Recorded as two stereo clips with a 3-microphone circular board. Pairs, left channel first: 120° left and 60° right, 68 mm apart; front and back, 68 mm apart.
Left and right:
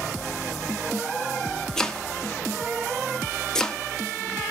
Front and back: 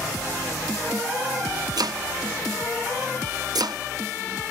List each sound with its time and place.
1.8 s chopping: 160° right, 0.6 m